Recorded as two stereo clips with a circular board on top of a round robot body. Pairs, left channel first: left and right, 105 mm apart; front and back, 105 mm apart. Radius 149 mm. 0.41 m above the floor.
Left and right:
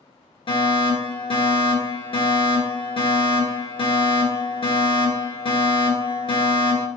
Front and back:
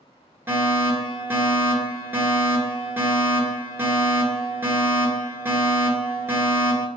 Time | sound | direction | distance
0.5 | a fire alarm | 110° left | 4 m